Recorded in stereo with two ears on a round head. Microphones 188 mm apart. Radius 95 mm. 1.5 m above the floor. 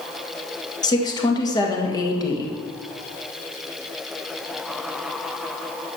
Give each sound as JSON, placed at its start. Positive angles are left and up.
{"t": 0.8, "sound": "a woman speaking", "side_deg": 20, "distance_m": 1.9}